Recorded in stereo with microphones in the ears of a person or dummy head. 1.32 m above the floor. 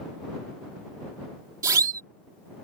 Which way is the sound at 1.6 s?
20° right (ahead or behind).